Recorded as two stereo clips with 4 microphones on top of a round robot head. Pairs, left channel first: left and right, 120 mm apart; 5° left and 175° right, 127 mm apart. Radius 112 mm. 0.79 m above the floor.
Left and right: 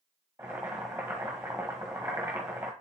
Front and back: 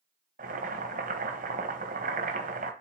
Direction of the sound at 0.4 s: 165° right.